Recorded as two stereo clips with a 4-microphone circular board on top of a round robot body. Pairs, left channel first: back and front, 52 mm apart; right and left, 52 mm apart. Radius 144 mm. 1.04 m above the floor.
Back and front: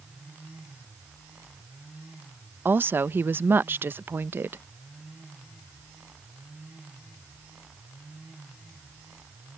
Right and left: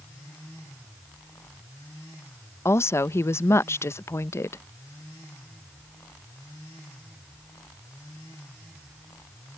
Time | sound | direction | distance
2.6 | a woman speaking | 55° right | ?